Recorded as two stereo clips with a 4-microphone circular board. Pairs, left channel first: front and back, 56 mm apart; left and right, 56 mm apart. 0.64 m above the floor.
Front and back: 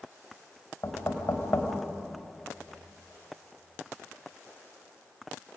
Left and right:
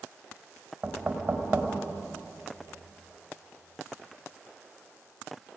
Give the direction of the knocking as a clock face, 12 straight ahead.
1 o'clock.